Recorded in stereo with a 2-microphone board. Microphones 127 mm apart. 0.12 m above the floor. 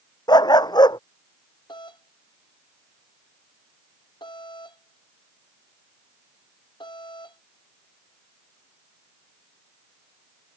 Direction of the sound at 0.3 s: 35° left (ahead or behind).